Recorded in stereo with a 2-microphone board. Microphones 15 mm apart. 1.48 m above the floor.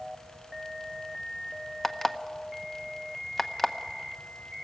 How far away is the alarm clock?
About 0.8 m.